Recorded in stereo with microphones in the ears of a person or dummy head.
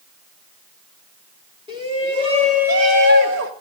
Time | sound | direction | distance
1.7 | a shout | 20° right (ahead or behind) | 3.5 m